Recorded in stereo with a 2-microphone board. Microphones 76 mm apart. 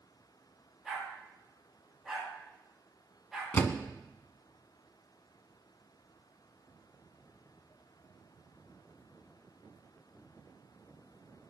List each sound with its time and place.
0.8 s a dog barking: 5° right (ahead or behind), 7.5 m
3.5 s a door slam: 25° left (ahead or behind), 1.2 m